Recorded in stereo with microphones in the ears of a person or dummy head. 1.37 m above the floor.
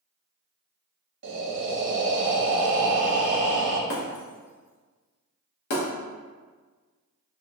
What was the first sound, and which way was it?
Breathing, 60° right (ahead or behind).